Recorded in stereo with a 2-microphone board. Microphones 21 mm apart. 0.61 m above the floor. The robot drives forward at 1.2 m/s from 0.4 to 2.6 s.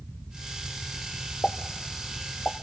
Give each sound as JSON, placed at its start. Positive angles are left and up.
{"t": 1.4, "sound": "a pop", "side_deg": 70, "distance_m": 0.8}